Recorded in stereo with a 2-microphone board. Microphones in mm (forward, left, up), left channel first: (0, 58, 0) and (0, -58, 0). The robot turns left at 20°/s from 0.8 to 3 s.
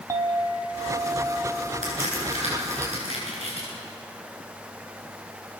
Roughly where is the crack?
Right.